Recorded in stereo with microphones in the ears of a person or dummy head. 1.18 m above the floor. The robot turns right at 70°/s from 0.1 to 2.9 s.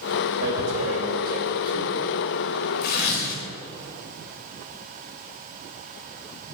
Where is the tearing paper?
70° right (ahead or behind), 3 m; by 3.4 s 65° left (ahead or behind), 3 m.